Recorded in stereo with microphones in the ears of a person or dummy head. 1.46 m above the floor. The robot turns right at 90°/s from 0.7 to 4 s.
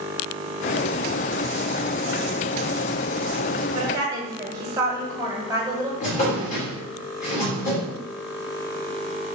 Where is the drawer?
40° left (ahead or behind), 1.6 m.